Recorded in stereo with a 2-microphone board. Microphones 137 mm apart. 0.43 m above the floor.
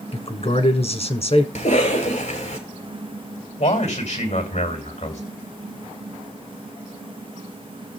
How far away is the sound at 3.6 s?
About 2.5 m.